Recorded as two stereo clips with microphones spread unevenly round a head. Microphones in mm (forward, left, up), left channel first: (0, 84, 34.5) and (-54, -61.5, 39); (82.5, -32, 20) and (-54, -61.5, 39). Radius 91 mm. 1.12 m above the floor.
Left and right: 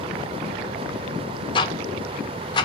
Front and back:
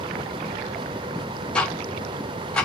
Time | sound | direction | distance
1.6 | ticking | 75° left | 0.7 m